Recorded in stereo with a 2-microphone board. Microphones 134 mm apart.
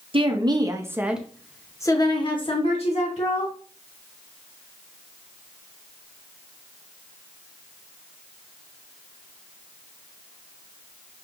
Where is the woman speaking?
45° right (ahead or behind), 0.9 m; by 3.5 s 60° left (ahead or behind), 1.4 m.